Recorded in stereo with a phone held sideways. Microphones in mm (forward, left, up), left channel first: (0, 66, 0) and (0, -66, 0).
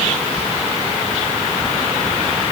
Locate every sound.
Only background noise.